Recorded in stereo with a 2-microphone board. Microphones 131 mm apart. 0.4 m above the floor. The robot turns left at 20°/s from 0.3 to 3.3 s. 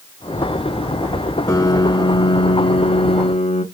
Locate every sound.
1.5 s a piano: 155° left, 0.8 m; by 3.6 s 120° left, 0.8 m